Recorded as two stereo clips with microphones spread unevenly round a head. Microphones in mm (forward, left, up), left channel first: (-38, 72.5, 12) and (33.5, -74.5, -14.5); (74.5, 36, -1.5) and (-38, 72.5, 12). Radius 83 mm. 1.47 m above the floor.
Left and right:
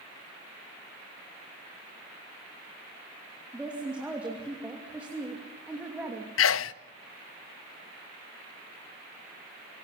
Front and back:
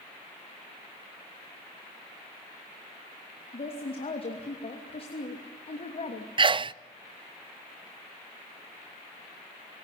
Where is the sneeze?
110° left, 0.5 m.